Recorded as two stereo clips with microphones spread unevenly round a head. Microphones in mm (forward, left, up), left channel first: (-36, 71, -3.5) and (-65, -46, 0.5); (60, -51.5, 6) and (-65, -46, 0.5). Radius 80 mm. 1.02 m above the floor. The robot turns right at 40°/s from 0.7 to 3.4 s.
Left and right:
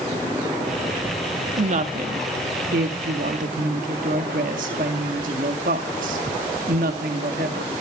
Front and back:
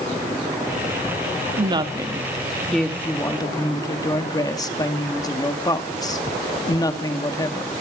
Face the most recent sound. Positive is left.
turn(degrees=-65)